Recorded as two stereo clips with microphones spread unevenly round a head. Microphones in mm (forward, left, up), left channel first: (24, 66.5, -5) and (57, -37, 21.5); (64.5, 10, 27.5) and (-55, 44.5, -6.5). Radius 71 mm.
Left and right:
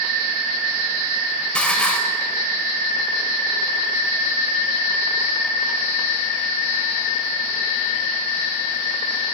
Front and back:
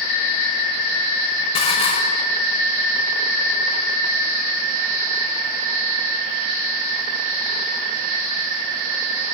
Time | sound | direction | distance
1.6 | dishes clattering | 25° left | 4 m